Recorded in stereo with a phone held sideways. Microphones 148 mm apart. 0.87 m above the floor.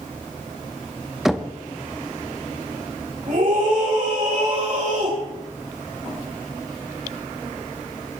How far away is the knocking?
About 1.1 m.